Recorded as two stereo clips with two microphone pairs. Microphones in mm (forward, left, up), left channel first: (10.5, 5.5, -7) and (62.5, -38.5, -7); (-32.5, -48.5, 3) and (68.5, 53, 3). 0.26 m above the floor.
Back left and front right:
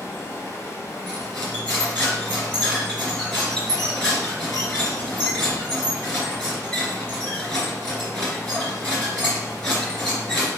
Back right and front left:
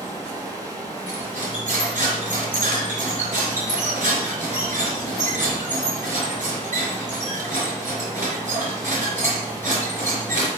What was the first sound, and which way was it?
Running water, 105° left.